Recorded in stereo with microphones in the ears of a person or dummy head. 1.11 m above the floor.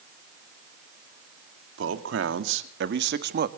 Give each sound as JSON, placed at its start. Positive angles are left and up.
{"t": 1.8, "sound": "a man speaking", "side_deg": -75, "distance_m": 2.0}